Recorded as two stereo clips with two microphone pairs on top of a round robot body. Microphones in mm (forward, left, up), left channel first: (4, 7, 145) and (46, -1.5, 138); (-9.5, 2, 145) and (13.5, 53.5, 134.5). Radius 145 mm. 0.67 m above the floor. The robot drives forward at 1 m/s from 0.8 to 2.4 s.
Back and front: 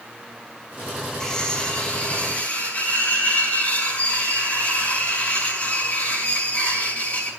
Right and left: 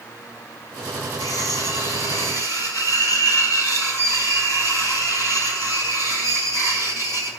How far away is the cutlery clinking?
About 2.5 m.